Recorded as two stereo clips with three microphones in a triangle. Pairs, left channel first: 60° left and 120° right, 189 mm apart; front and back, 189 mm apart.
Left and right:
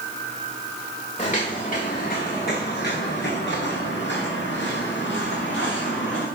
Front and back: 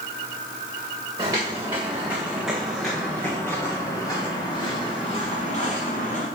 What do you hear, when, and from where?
1.2 s footsteps: 110° left, 3.5 m; by 6.3 s 45° left, 4 m